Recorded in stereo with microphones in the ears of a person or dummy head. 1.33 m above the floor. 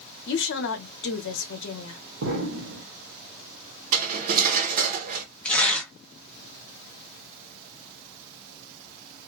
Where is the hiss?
No hiss in this recording.